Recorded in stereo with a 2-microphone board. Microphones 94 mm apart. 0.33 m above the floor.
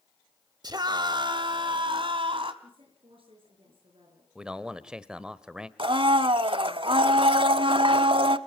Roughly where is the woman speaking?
Right.